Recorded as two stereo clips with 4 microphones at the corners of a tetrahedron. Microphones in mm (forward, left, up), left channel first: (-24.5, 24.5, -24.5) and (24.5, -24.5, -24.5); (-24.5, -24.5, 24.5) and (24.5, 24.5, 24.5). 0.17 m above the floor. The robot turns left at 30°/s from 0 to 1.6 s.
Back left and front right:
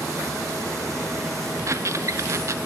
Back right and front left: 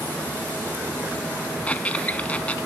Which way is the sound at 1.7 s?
70° right.